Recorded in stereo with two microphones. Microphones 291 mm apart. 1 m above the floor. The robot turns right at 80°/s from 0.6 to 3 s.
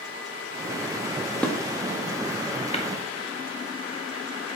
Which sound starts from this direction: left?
Tapping, at 2.7 s.